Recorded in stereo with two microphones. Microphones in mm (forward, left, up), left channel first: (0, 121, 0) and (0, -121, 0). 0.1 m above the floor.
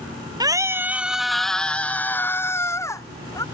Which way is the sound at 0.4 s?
15° right (ahead or behind).